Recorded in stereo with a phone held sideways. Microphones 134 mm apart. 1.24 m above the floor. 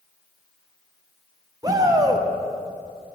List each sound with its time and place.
1.6 s a shout: 25° right (ahead or behind), 0.6 m